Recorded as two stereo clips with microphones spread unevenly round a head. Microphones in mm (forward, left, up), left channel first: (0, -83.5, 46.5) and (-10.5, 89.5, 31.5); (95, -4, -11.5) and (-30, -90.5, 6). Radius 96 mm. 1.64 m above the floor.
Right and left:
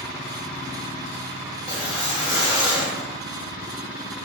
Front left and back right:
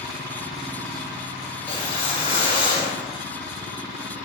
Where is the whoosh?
25° right, 1.2 m.